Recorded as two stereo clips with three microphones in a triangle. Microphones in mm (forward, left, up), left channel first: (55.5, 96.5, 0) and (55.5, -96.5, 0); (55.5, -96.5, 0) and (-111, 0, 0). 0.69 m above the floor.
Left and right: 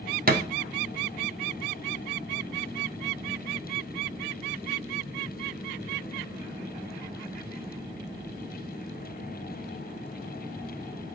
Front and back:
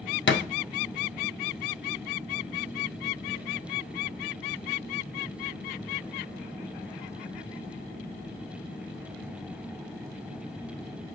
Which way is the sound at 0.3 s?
45° right.